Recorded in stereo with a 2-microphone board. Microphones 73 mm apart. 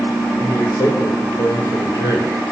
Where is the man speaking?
65° left (ahead or behind), 2.5 m.